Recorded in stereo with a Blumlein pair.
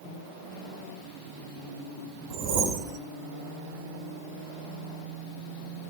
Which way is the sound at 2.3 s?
40° right.